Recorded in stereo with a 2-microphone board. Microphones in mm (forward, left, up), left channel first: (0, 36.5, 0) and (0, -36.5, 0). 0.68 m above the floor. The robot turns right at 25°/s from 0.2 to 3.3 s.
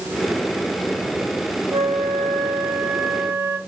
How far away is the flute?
About 2.5 m.